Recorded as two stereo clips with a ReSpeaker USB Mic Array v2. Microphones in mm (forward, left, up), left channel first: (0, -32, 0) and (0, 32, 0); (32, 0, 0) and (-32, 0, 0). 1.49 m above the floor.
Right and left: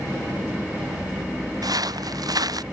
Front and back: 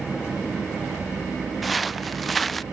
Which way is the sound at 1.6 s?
90° left.